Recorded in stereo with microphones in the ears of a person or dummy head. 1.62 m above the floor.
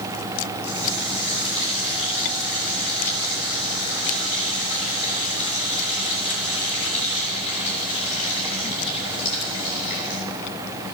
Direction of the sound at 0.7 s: 75° left (ahead or behind).